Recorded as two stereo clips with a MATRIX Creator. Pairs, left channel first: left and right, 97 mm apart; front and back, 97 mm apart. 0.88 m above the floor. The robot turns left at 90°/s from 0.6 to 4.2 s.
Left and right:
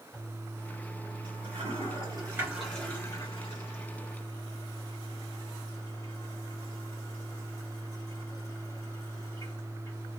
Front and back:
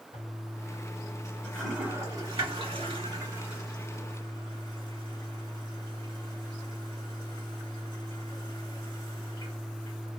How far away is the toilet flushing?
About 1.6 m.